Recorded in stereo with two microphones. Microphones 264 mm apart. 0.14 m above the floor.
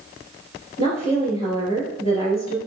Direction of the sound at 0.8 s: 20° left (ahead or behind).